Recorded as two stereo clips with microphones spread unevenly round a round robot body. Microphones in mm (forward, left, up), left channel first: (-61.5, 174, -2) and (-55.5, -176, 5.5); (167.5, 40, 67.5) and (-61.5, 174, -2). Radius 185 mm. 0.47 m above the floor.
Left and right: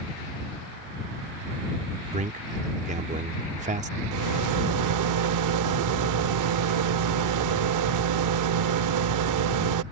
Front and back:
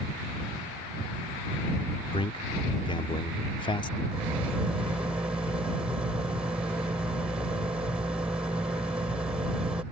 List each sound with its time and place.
2.1 s a man speaking: 115° right
4.1 s a rattle: 130° right